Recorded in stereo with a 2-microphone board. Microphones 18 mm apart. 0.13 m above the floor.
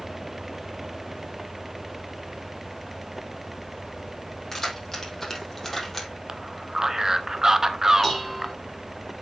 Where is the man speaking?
30° right (ahead or behind), 1.2 m.